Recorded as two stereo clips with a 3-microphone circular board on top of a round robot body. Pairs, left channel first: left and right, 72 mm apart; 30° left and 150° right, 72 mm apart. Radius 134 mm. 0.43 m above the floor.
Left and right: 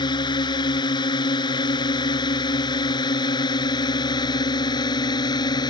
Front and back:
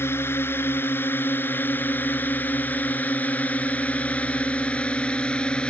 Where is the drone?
90° left; by 5.7 s 105° left.